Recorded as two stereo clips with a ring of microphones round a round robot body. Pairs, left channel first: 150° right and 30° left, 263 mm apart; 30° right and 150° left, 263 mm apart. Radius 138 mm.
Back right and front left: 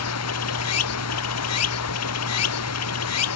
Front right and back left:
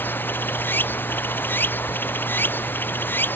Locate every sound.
0.0 s running water: 115° right